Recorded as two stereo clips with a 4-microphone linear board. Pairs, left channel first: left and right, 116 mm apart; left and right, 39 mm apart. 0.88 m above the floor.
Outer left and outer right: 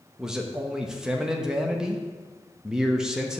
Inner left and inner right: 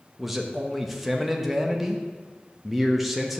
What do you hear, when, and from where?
0.2 s a man speaking: 5° right (ahead or behind), 0.9 m